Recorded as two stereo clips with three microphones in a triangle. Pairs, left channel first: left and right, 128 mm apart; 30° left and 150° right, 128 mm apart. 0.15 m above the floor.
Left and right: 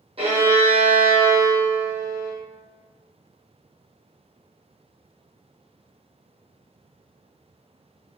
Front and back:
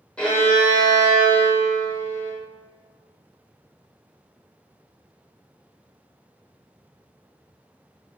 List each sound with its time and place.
0.2 s a violin: 50° right, 0.9 m